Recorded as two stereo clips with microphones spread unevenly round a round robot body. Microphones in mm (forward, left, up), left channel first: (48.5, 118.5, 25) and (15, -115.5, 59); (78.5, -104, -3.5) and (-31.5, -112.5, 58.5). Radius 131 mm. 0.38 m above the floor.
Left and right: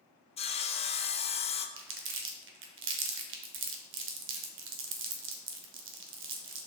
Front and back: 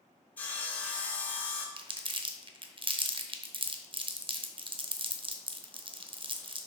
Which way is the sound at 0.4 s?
35° left.